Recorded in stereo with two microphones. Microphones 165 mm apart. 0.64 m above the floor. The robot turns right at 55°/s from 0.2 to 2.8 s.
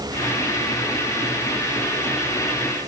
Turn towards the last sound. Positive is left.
No sound to turn to.